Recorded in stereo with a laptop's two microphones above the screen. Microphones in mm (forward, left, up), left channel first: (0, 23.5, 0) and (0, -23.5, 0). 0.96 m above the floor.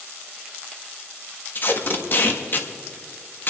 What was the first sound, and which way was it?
Tape being pulled, 40° left (ahead or behind).